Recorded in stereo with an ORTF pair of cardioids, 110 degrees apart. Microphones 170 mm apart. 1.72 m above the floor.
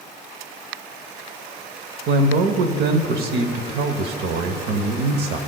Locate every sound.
2.1 s a man speaking: 70° right, 0.9 m